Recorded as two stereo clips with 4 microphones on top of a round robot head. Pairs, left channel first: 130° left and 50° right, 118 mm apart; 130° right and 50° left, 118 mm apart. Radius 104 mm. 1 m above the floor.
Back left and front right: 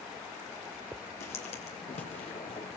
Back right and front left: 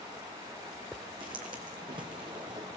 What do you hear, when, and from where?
1.2 s footsteps: 100° left, 2 m